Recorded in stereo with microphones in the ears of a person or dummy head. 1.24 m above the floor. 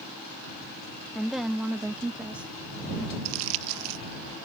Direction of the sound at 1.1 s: Centre (ahead or behind).